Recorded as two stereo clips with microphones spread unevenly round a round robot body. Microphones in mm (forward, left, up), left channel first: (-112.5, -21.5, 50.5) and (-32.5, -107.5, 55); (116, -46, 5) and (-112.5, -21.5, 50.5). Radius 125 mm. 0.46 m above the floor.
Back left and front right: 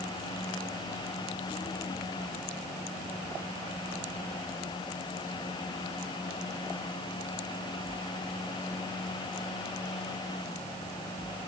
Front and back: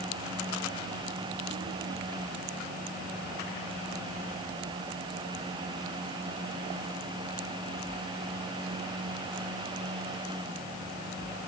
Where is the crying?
No crying in this recording.